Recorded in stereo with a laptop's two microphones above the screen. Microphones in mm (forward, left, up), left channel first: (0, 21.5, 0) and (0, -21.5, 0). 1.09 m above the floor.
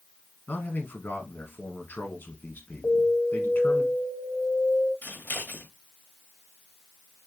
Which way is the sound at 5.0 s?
50° left (ahead or behind).